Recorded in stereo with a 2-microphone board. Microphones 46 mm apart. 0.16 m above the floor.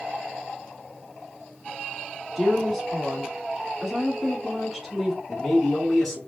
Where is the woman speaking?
Centre (ahead or behind), 1.7 m.